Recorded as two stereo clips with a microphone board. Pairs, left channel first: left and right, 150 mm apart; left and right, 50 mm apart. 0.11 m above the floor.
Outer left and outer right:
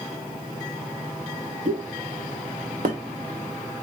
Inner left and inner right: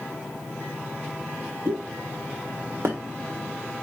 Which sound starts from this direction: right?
A pop, at 1.6 s.